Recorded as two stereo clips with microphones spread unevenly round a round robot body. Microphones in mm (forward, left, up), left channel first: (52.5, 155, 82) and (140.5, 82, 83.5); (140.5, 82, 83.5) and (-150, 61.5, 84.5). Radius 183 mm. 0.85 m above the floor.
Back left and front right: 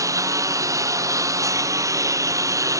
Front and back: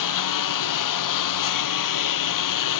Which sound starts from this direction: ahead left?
A lawn mower, at 0.0 s.